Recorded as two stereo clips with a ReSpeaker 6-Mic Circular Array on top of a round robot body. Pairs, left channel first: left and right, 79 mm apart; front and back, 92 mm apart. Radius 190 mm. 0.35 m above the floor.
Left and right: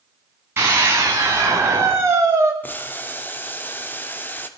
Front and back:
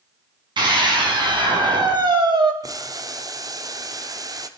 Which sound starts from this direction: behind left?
Boiling, at 2.6 s.